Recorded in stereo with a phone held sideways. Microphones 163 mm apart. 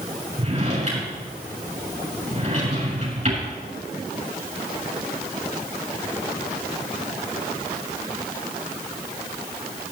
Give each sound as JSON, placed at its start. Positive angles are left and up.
{"t": 0.4, "sound": "a drawer", "side_deg": -45, "distance_m": 7.0}